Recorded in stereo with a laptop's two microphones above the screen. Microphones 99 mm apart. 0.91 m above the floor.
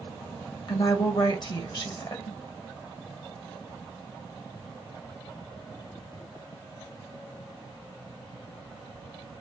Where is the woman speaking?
45° left (ahead or behind), 1.5 m.